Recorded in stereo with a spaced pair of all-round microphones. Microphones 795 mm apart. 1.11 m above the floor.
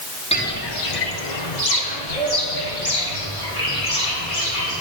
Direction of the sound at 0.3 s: 10° left (ahead or behind).